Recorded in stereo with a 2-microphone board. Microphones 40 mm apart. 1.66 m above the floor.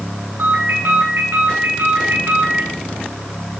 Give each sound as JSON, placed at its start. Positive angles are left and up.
{"t": 0.4, "sound": "a ringtone", "side_deg": -75, "distance_m": 8.0}